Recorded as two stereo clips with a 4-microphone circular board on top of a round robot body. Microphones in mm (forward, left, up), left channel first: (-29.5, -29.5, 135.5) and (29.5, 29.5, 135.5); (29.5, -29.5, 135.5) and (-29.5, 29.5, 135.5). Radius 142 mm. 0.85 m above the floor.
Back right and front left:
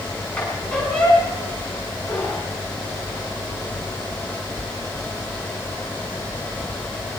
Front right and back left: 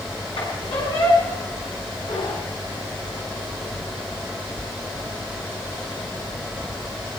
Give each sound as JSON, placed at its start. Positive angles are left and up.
{"t": 0.4, "sound": "a squeak", "azimuth_deg": -55, "distance_m": 7.0}